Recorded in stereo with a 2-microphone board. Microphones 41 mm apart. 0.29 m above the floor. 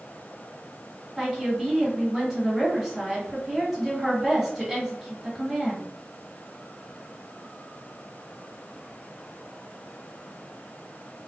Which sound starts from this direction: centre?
A woman speaking, at 1.2 s.